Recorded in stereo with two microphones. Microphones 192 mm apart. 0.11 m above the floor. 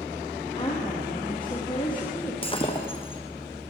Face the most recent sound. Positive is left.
turn(degrees=30)  # may be behind; listen again after turning